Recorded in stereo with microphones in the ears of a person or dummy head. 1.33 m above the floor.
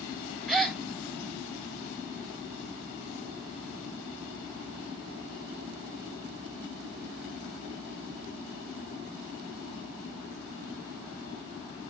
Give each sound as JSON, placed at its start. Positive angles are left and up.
{"t": 0.5, "sound": "a gasp", "side_deg": 0, "distance_m": 0.8}